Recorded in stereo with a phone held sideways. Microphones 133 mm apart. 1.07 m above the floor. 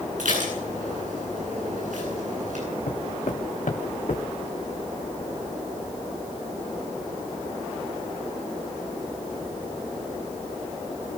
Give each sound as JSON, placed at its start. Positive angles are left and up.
{"t": 0.2, "sound": "dishes clattering", "side_deg": -75, "distance_m": 10.0}
{"t": 2.9, "sound": "footsteps", "side_deg": 75, "distance_m": 4.5}